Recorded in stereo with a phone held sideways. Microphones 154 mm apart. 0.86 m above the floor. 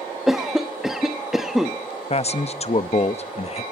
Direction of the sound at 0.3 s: 5° right (ahead or behind).